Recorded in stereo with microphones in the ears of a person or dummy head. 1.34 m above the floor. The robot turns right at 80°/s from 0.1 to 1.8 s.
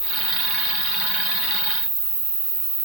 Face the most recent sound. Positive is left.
turn(degrees=-115)